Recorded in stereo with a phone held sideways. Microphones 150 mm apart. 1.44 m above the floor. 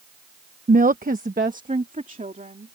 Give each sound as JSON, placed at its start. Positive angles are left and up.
{"t": 0.7, "sound": "a woman speaking", "side_deg": -60}